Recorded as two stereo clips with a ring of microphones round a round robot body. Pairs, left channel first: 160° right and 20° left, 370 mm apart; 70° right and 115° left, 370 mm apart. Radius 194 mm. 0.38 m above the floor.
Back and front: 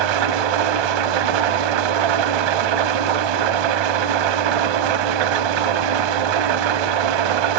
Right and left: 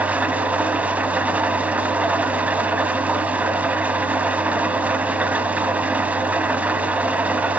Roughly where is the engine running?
Ahead left.